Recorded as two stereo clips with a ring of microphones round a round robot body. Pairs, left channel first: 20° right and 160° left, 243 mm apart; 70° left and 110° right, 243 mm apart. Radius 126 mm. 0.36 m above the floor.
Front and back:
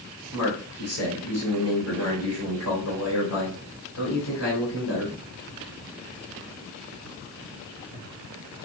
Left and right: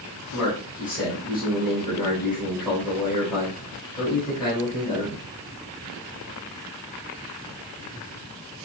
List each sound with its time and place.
0.3 s a man speaking: 5° right, 2 m